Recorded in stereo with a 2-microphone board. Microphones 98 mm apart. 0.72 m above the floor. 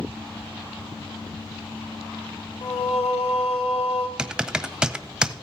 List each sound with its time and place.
2.6 s singing: 85° left, 1.3 m
4.2 s typing on a keyboard: 5° right (ahead or behind), 0.5 m